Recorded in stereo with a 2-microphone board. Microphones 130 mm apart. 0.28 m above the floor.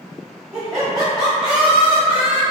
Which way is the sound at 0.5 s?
Centre (ahead or behind).